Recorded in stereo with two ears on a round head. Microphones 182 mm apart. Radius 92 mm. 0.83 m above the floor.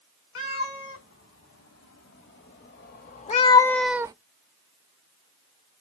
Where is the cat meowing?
75° left (ahead or behind), 2 m; by 4.1 s 20° right (ahead or behind), 0.5 m.